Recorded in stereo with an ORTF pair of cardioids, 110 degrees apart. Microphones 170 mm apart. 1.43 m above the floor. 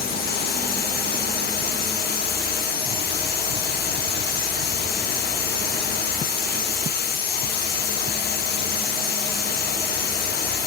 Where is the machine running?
65° left, 1.4 m.